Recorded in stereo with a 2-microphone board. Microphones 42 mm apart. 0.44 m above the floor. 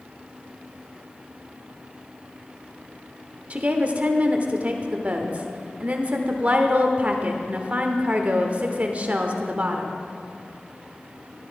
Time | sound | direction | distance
3.5 | a woman speaking | 35° right (ahead or behind) | 1.0 m